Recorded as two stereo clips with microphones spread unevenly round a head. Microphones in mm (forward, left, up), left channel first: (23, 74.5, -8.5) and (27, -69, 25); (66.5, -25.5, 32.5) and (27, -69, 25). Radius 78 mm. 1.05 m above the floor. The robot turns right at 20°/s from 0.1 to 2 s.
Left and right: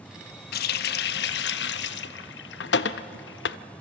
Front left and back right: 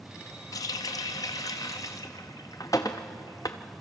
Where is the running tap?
75° left, 0.5 m; by 3.6 s 105° left, 0.5 m.